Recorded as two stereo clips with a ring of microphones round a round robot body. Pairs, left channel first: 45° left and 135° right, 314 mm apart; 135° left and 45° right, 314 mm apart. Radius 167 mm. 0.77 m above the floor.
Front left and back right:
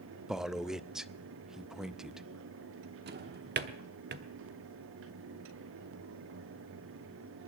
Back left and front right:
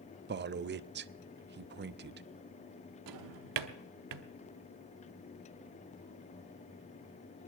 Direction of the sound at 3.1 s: 75° right.